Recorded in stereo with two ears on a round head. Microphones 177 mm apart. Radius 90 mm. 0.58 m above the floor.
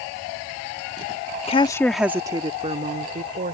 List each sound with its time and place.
1.5 s a woman speaking: 30° left (ahead or behind); by 3.5 s 45° right (ahead or behind)